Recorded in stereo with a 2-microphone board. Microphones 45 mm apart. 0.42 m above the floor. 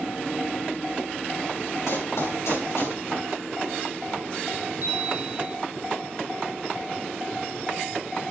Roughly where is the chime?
Right.